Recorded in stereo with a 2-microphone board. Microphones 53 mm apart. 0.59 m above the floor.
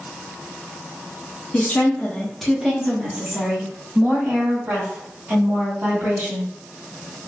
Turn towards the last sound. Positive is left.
turn(degrees=-55)  # may be behind; listen again after turning